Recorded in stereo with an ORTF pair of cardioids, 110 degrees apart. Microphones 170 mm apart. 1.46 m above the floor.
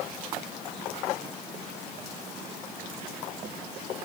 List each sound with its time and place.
Only background noise.